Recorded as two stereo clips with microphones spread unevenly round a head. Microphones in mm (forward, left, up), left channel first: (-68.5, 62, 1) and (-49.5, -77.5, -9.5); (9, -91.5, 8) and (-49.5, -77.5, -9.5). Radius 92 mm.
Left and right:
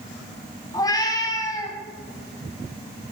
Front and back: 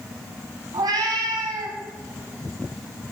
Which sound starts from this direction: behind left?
A cat meowing, at 0.7 s.